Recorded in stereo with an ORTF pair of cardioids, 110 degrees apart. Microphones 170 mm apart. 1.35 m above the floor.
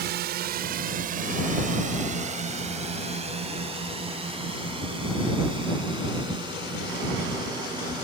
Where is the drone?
70° right; by 8.0 s 25° right.